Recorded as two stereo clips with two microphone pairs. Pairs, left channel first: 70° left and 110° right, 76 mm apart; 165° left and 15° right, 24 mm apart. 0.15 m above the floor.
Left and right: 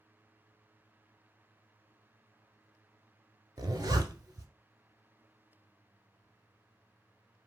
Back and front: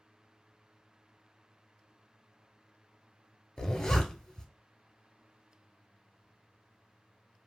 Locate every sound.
3.6 s a zipper: 135° right, 0.6 m